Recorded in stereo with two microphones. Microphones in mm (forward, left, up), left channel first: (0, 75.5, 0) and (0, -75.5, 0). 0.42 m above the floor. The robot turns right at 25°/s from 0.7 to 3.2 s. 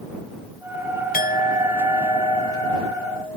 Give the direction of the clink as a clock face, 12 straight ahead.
9 o'clock.